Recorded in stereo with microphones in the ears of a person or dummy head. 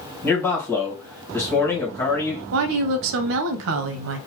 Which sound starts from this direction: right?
A woman speaking, at 2.5 s.